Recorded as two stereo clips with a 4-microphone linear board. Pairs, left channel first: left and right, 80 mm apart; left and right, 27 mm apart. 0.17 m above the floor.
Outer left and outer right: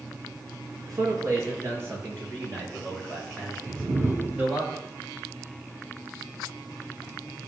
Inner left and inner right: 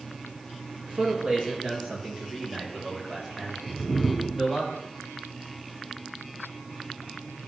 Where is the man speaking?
50° right (ahead or behind), 2.5 m; by 4.7 s 20° right (ahead or behind), 6.5 m.